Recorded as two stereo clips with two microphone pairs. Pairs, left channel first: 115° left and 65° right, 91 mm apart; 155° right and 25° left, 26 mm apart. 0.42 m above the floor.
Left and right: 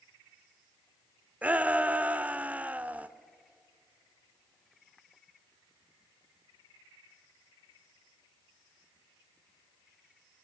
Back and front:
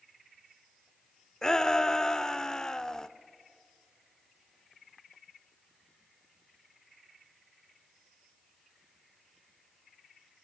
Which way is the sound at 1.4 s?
120° right.